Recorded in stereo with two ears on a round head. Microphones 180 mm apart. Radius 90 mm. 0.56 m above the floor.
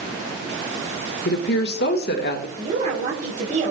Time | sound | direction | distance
1.2 | a woman speaking | 50° left (ahead or behind) | 1.3 m
2.6 | a woman speaking | 35° right (ahead or behind) | 5 m